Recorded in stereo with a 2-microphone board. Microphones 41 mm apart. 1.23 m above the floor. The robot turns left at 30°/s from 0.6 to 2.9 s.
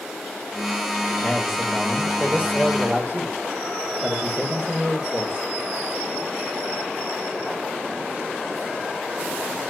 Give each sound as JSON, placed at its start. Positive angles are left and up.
{"t": 1.2, "sound": "a man speaking", "azimuth_deg": -5, "distance_m": 2.5}